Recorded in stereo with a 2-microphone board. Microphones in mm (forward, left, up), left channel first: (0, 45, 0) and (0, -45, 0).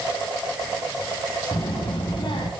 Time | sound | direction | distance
1.5 | a child speaking | 70° left (ahead or behind) | 3 m